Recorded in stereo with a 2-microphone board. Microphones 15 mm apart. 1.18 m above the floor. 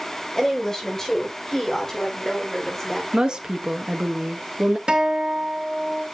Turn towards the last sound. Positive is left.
turn(degrees=-65)  # may be behind; listen again after turning